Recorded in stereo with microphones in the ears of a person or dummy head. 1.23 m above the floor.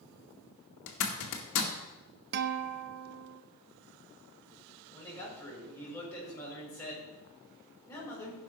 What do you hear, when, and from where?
0.9 s a zipper: 70° left (ahead or behind), 2 m
2.3 s a guitar: 55° right (ahead or behind), 0.6 m
4.9 s a man speaking: 15° left (ahead or behind), 6 m